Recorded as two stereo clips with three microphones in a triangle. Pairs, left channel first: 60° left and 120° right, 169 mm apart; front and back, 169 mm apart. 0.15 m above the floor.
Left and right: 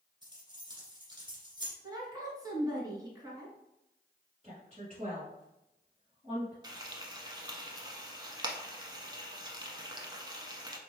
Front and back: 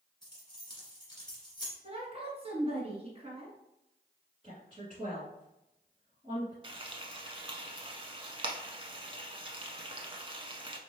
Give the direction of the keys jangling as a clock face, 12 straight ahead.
2 o'clock.